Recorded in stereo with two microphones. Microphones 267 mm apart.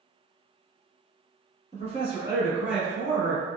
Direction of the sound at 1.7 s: 30° right (ahead or behind).